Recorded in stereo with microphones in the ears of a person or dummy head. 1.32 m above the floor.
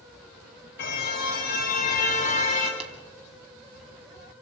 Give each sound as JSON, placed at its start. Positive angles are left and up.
{"t": 0.8, "sound": "a car horn", "side_deg": 60, "distance_m": 3.5}
{"t": 2.8, "sound": "tapping", "side_deg": -35, "distance_m": 2.5}